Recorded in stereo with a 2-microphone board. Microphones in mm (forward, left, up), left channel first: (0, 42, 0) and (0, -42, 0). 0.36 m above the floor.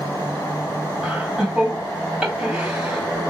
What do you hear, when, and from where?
1.0 s laughter: 10° right (ahead or behind), 2.5 m